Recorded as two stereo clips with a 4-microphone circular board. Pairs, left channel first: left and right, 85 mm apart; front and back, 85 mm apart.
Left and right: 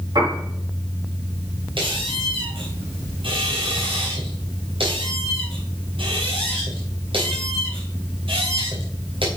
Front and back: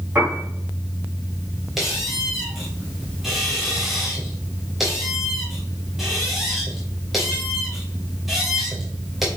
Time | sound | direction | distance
0.1 | a piano | 115° right | 5 m
1.8 | a squeak | 90° right | 2.5 m